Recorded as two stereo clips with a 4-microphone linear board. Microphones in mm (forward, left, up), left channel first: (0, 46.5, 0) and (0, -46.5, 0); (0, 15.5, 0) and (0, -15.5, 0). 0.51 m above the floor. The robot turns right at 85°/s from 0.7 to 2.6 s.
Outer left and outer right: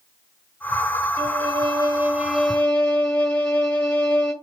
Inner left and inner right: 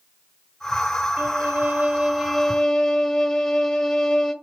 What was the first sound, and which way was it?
A violin, 110° right.